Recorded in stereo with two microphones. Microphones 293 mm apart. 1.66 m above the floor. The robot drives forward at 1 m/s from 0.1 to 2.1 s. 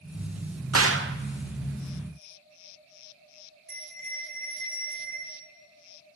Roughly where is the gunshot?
Right.